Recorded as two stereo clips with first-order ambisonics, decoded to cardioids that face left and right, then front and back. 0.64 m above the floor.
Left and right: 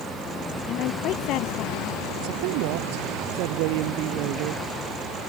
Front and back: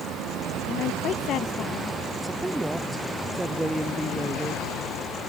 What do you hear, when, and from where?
0.7 s a woman speaking: 50° left
2.2 s a woman speaking: 95° right